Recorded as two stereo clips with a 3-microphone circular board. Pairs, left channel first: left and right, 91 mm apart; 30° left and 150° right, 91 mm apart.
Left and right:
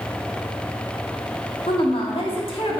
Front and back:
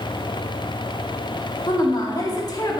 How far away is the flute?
No flute in this recording.